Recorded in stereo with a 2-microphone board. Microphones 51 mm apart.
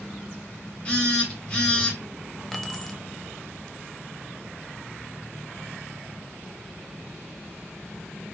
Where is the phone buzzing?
20° left (ahead or behind), 1.3 m.